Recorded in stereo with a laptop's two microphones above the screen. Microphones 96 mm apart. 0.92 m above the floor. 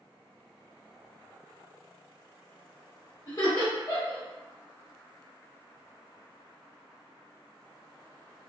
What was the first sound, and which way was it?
Laughter, 40° left (ahead or behind).